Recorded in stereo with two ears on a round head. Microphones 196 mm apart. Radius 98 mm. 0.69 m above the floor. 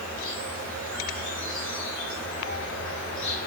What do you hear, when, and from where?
0.0 s an insect: 60° left (ahead or behind), 2.5 m